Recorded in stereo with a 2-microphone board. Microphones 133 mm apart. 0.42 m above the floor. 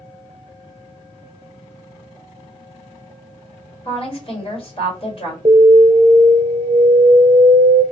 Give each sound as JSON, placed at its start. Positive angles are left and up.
{"t": 3.9, "sound": "a woman speaking", "side_deg": 45, "distance_m": 1.8}
{"t": 5.5, "sound": "an alarm", "side_deg": -45, "distance_m": 0.8}